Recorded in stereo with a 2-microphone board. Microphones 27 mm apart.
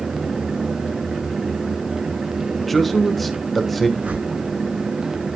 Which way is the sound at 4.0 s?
75° right (ahead or behind).